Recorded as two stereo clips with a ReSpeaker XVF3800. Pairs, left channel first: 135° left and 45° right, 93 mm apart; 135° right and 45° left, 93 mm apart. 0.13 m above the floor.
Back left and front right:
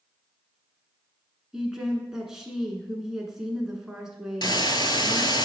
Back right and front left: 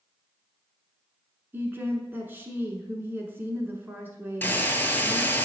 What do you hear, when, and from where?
1.5 s a woman speaking: 30° left, 1.1 m
4.4 s a hiss: 160° left, 0.5 m